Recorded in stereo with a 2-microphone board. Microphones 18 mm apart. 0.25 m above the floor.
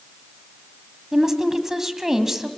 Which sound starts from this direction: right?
A woman speaking, at 1.1 s.